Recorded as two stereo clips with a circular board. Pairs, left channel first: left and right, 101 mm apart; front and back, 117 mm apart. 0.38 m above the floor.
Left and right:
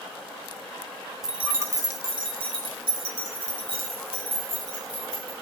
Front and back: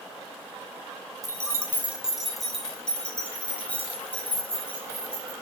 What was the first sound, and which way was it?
Keys jangling, 170° right.